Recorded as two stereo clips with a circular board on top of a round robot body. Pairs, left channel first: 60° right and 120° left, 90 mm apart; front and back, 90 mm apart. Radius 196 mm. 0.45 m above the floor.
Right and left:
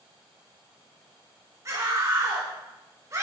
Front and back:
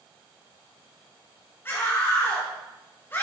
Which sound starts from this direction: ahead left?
A scream, at 1.6 s.